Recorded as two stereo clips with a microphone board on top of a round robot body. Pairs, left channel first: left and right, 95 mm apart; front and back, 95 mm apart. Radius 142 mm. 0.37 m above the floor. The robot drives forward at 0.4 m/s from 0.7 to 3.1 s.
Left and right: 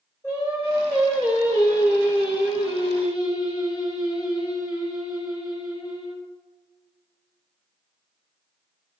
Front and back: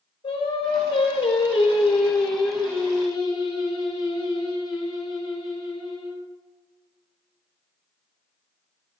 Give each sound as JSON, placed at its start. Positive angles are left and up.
{"t": 0.2, "sound": "singing", "azimuth_deg": 35, "distance_m": 4.0}